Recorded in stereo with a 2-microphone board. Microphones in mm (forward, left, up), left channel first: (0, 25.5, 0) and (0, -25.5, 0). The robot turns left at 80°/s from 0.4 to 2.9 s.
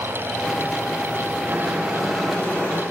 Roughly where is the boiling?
Behind right.